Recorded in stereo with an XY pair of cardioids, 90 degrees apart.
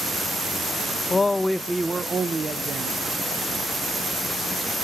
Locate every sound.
1.1 s a man speaking: 35° left, 0.5 m; by 3.2 s 65° right, 1.2 m